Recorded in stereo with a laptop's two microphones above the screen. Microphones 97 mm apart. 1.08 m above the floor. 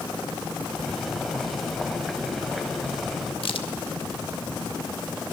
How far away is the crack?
About 1.4 m.